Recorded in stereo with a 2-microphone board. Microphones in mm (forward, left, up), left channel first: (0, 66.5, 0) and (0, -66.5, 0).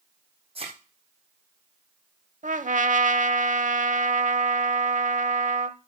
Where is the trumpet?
60° right (ahead or behind), 0.7 m.